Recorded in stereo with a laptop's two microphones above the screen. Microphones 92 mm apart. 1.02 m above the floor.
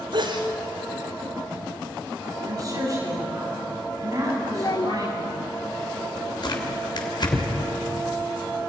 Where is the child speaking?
50° left (ahead or behind), 0.6 m.